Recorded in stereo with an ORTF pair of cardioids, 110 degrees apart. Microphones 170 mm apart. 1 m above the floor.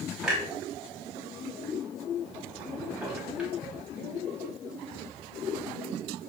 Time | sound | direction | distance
0.2 | a clunk | 5° right | 0.8 m